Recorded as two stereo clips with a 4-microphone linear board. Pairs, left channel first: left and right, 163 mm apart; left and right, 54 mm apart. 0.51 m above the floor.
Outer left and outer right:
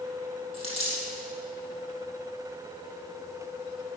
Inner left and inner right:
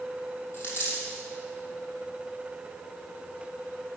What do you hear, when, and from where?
0.5 s a dropped coin: 40° left (ahead or behind), 3 m